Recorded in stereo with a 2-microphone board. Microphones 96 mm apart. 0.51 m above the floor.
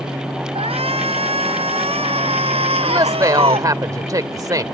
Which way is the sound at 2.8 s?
40° right (ahead or behind).